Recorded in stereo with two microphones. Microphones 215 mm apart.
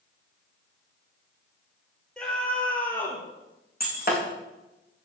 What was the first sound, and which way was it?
A scream, 5° left (ahead or behind).